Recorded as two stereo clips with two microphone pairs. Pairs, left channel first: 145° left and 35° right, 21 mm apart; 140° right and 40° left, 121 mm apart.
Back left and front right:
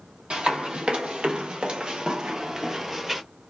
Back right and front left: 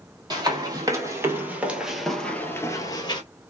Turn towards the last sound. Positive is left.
turn(degrees=-120)